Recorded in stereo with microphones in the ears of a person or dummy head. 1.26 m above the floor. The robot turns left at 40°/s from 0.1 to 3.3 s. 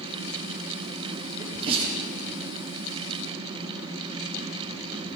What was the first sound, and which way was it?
A sneeze, 20° right (ahead or behind).